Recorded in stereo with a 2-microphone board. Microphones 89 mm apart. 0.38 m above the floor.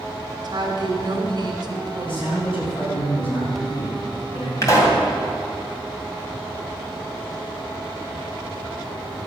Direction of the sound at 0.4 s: 55° right (ahead or behind).